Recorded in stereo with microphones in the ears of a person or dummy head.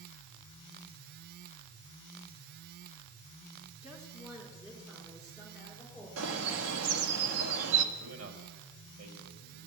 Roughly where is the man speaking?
Right.